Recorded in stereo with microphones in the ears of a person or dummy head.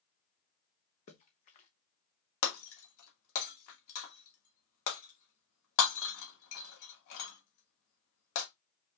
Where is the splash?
40° left (ahead or behind), 1.1 m.